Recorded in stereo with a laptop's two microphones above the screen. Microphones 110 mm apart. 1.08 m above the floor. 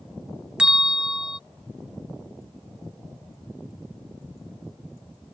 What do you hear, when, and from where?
0.6 s a bell: 10° right (ahead or behind)